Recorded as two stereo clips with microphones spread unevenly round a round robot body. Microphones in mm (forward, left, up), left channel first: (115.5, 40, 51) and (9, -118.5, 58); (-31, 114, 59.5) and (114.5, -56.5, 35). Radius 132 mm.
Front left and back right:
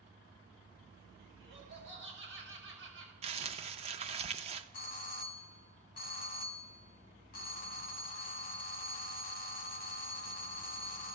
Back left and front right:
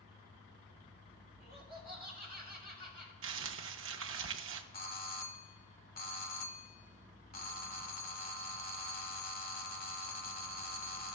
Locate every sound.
1.4 s laughter: 160° right, 3.5 m
3.2 s crumpling: 80° right, 0.5 m
4.7 s a doorbell: 85° left, 1.2 m